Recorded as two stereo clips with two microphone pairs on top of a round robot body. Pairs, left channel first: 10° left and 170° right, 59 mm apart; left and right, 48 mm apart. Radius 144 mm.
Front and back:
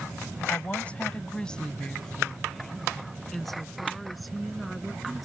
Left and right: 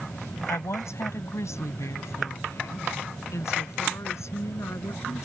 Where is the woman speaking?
75° left; by 5.2 s 105° left.